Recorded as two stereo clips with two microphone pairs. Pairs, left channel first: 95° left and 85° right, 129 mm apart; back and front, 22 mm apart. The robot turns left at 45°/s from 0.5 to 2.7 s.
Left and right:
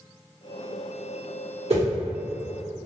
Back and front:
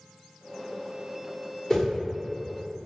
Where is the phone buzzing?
I don't hear a phone buzzing.